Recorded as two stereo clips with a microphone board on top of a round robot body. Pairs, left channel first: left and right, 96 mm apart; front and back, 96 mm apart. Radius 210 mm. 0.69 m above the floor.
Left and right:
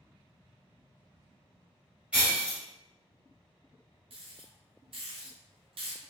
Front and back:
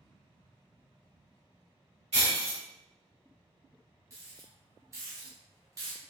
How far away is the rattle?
About 0.6 m.